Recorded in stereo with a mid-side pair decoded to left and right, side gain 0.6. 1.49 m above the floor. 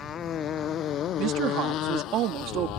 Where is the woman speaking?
60° right.